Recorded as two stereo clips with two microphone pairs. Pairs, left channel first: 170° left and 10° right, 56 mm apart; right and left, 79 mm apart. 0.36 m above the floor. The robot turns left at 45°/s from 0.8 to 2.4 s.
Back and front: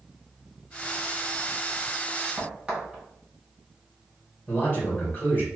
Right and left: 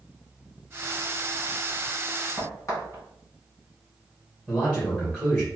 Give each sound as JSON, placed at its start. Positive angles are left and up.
{"t": 2.4, "sound": "a crack", "azimuth_deg": -65, "distance_m": 1.7}
{"t": 4.5, "sound": "a man speaking", "azimuth_deg": 180, "distance_m": 1.5}